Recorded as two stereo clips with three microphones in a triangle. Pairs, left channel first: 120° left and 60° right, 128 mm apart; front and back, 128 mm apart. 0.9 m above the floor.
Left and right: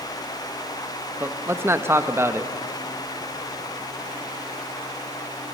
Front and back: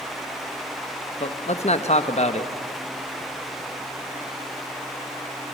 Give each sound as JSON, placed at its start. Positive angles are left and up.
{"t": 1.2, "sound": "a man speaking", "azimuth_deg": 10, "distance_m": 1.1}